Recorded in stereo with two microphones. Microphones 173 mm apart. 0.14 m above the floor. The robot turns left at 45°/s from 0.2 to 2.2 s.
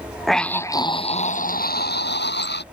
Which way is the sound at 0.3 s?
Straight behind.